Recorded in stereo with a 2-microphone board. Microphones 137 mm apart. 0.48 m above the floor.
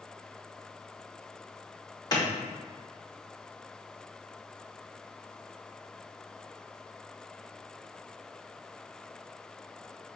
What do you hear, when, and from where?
2.1 s a clap: 30° left (ahead or behind), 0.9 m